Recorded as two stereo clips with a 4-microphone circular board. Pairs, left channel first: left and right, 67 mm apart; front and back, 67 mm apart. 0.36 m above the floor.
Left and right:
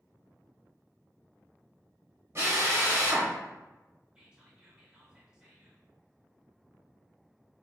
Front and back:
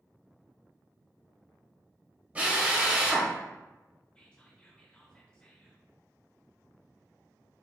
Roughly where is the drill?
Behind right.